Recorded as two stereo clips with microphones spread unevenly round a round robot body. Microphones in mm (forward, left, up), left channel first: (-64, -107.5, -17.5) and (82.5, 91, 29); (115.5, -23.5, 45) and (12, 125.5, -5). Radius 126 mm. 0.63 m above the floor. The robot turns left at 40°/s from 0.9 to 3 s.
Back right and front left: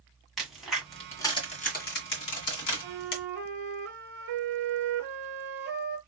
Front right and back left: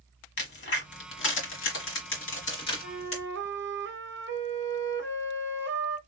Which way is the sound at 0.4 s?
35° right.